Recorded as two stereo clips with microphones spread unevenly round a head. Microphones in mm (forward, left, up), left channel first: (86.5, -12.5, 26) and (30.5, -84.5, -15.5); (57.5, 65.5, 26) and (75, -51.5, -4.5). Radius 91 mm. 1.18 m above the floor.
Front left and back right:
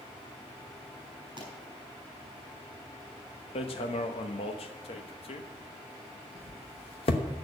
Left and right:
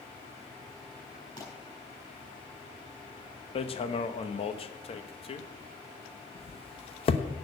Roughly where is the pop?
Behind.